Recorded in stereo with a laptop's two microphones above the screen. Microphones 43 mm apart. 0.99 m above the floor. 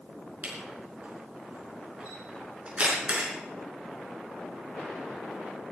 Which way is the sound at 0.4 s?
30° right (ahead or behind).